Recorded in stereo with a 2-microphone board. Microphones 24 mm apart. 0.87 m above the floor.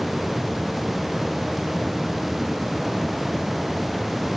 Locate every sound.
Only background noise.